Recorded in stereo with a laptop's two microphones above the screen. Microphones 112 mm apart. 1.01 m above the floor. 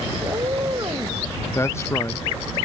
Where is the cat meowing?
45° right (ahead or behind).